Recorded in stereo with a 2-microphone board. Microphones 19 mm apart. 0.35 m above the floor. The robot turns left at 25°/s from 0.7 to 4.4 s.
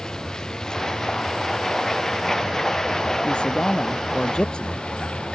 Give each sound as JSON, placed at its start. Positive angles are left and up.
{"t": 0.0, "sound": "a vehicle", "side_deg": 40}
{"t": 3.2, "sound": "a man speaking", "side_deg": 80}